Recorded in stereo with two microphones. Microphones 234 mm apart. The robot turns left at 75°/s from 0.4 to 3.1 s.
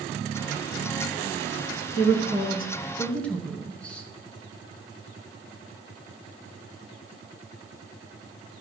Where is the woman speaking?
60° left (ahead or behind), 2.5 m; by 4.1 s 5° left (ahead or behind), 2.5 m.